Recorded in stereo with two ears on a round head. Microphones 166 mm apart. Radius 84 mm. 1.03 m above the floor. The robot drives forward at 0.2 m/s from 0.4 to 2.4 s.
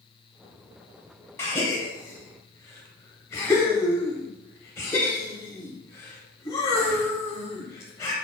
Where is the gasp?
15° left (ahead or behind), 0.8 m.